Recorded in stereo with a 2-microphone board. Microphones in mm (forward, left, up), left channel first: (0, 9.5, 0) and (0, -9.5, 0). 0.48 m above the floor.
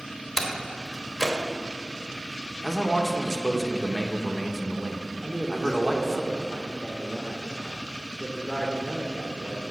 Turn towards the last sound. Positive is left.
turn(degrees=45)  # may be behind; listen again after turning